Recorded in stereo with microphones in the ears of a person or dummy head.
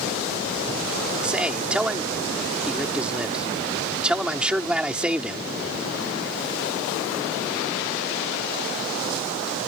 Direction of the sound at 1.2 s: 5° right (ahead or behind).